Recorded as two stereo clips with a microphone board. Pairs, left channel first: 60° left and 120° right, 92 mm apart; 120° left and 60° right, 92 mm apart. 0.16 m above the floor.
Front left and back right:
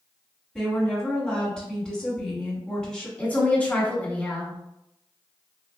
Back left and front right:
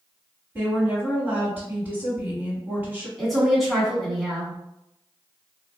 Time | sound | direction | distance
0.6 | a woman speaking | 15° right | 1.8 m
3.2 | a woman speaking | 30° left | 1.4 m